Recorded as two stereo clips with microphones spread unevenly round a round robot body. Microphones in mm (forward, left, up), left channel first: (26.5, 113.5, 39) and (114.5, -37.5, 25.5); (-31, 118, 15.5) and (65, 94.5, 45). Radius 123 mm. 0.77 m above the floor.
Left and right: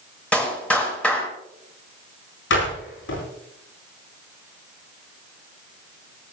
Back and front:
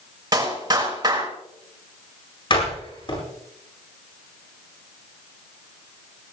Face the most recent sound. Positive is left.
turn(degrees=130)